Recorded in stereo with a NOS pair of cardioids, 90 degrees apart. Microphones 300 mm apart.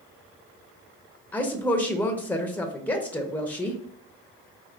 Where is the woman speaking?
5° left, 0.7 m.